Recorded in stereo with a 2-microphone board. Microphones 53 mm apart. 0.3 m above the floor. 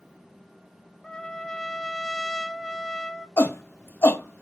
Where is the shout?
50° left (ahead or behind), 1.5 m.